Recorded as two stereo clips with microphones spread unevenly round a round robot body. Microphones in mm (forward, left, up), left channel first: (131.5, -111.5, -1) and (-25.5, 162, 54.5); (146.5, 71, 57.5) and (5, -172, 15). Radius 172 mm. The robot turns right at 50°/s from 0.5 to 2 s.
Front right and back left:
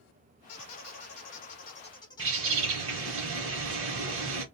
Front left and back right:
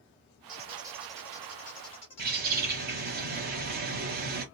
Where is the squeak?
65° right, 1.5 m; by 3.2 s 10° left, 1.5 m.